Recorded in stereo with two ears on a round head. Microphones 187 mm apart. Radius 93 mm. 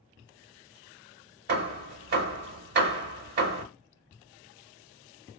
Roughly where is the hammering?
Right.